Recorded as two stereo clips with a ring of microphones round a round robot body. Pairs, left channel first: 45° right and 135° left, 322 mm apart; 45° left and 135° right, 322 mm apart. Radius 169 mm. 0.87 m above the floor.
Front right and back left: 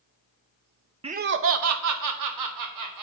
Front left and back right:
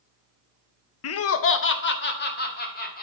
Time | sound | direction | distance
1.0 | laughter | 65° left | 0.6 m